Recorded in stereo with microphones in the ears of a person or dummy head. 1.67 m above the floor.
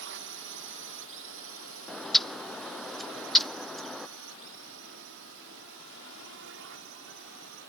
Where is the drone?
60° right (ahead or behind).